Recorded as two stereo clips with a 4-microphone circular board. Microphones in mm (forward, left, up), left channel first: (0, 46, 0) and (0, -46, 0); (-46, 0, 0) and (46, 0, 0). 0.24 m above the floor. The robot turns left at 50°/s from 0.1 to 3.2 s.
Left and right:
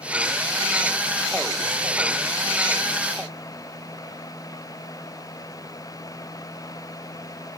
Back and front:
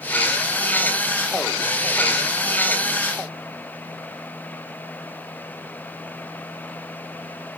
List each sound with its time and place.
Only background noise.